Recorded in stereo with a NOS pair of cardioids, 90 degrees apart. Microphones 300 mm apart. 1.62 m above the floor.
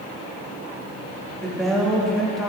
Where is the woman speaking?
Straight ahead, 2.5 m.